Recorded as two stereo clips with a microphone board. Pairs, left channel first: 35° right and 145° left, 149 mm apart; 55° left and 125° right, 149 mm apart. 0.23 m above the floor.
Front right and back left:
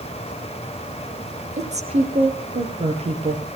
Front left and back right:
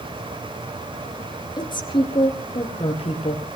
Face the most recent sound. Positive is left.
turn(degrees=100)